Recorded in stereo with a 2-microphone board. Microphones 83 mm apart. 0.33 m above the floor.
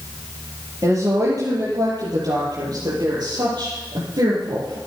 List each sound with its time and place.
0.8 s a woman speaking: 40° right (ahead or behind), 8 m; by 4.8 s 65° right (ahead or behind), 8.5 m